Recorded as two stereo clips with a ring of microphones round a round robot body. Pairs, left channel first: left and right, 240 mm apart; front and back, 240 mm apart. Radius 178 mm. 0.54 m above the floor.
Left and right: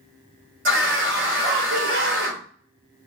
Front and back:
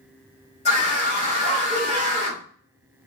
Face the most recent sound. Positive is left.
turn(degrees=-65)